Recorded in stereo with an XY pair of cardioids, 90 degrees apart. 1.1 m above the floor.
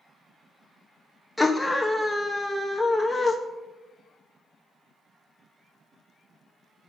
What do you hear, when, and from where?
1.4 s a scream: 15° left, 0.8 m